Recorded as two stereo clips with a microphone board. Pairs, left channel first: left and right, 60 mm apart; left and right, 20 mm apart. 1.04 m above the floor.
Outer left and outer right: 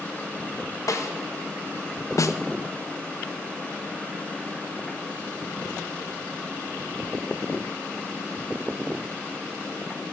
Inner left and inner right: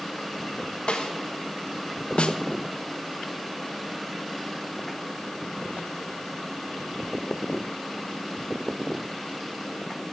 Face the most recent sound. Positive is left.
turn(degrees=65)  # may be behind; listen again after turning